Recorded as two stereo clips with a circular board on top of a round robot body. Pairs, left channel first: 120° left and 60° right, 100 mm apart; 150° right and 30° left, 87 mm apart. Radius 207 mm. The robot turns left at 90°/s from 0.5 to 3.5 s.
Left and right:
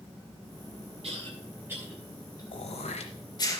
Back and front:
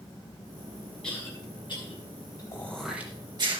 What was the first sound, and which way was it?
A cough, 70° right.